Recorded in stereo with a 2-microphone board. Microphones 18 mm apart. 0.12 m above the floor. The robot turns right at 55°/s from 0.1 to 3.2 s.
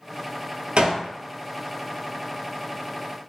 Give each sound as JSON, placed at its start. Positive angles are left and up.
{"t": 0.8, "sound": "a gunshot", "side_deg": -70, "distance_m": 0.6}